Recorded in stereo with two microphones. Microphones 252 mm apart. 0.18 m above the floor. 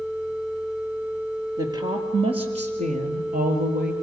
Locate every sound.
1.6 s a woman speaking: 15° right (ahead or behind), 3.5 m; by 3.9 s 40° right (ahead or behind), 3.5 m